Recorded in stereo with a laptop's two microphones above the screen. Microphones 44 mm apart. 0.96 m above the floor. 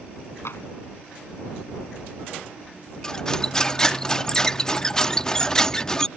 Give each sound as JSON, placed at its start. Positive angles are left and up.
{"t": 0.5, "sound": "tapping", "side_deg": 70}
{"t": 3.0, "sound": "cutlery clinking", "side_deg": 15}